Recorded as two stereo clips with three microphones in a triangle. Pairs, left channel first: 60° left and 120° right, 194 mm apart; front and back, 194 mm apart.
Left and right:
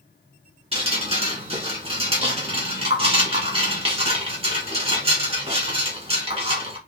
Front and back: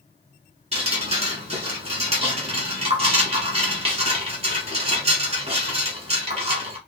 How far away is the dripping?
About 1.1 m.